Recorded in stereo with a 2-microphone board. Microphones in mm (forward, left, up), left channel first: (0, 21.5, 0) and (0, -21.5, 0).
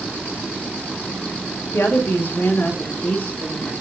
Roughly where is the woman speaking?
Left.